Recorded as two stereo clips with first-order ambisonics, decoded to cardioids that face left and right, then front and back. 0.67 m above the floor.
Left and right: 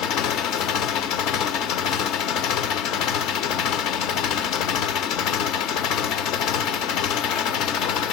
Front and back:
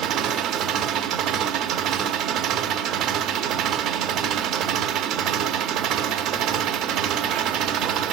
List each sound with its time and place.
0.0 s an engine running: 135° left, 0.8 m